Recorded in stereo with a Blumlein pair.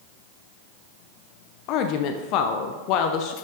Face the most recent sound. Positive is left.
turn(degrees=40)